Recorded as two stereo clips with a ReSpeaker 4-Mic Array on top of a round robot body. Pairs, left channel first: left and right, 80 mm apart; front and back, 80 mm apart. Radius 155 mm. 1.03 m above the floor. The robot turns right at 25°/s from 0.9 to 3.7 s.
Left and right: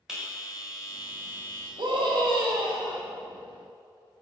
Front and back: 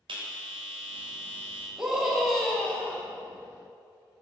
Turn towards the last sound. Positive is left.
turn(degrees=-50)